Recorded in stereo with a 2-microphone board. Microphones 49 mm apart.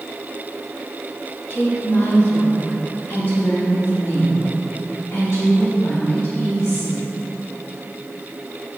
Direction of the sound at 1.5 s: 50° left (ahead or behind).